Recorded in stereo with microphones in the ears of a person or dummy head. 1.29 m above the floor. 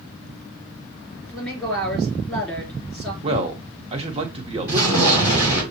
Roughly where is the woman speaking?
Centre.